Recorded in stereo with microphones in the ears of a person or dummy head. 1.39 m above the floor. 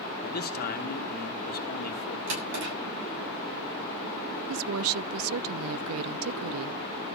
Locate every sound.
0.2 s a man speaking: 45° left (ahead or behind), 1.9 m
2.3 s a drawer: 70° right (ahead or behind), 6.5 m
4.5 s a woman speaking: 70° right (ahead or behind), 0.5 m